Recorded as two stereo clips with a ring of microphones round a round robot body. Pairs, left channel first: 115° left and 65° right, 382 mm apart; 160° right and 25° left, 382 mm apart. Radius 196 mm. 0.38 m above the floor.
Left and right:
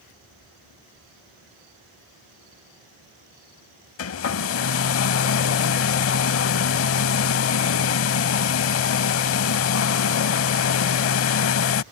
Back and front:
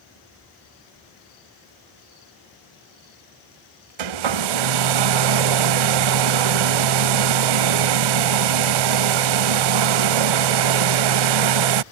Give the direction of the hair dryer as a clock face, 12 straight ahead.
10 o'clock.